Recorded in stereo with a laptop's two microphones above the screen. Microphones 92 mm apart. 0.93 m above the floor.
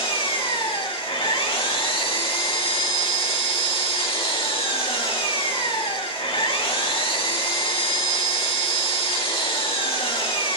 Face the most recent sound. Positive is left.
turn(degrees=75)  # may be behind; listen again after turning